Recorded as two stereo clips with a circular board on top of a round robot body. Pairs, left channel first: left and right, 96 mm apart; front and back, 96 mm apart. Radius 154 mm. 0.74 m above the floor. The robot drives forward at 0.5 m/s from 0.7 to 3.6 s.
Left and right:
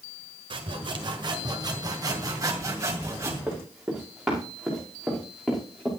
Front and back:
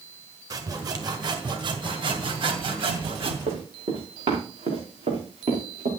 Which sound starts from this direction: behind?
Running footsteps, at 3.5 s.